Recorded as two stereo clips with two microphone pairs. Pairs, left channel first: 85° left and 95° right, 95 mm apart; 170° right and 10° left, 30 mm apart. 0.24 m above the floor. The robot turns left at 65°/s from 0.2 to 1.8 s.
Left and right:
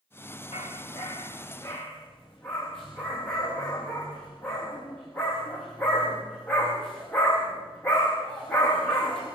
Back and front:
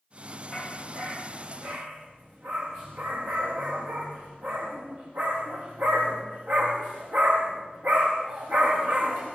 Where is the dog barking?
90° left, 7 m; by 9.3 s 5° left, 7 m.